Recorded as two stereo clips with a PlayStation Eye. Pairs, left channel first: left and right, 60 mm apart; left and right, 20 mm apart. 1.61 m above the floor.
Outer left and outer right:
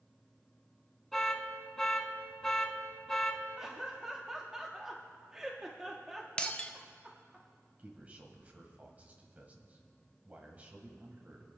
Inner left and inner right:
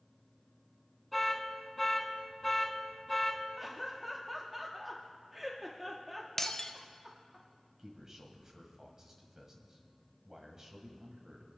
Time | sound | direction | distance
1.1 | an alarm | 5° left (ahead or behind) | 1.3 m
3.6 | laughter | 10° right (ahead or behind) | 0.9 m
6.4 | breaking glass | 20° left (ahead or behind) | 0.7 m
7.8 | a man speaking | 25° right (ahead or behind) | 1.7 m